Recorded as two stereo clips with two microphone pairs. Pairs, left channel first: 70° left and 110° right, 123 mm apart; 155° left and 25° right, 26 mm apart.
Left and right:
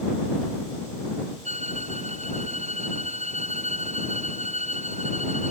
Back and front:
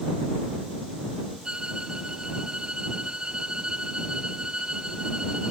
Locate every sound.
1.4 s a violin: 85° right